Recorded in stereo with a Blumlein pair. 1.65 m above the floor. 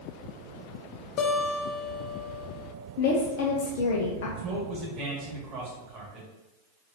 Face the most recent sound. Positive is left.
turn(degrees=-30)